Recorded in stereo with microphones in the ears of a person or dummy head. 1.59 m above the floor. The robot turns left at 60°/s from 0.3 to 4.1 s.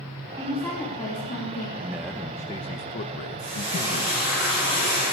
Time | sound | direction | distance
0.4 | a woman speaking | 170° right | 3 m
1.8 | a man speaking | 160° right | 1.2 m
3.4 | frying | 135° right | 9.5 m